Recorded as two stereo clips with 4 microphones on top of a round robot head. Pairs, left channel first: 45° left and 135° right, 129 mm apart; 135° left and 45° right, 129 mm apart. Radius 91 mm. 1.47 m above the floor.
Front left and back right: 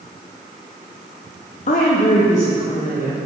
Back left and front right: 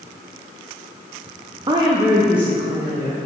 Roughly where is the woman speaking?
Ahead.